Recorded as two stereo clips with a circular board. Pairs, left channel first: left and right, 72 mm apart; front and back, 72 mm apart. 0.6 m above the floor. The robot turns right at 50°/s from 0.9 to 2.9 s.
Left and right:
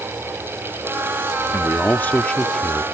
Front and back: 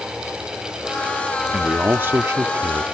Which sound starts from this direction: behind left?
A man speaking, at 1.5 s.